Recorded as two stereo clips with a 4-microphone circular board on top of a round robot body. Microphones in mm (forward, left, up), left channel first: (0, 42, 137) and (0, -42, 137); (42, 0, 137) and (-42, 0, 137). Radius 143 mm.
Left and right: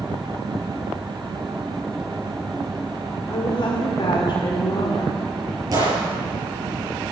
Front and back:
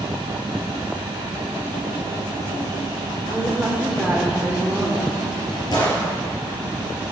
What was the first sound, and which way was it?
A woman speaking, 105° left.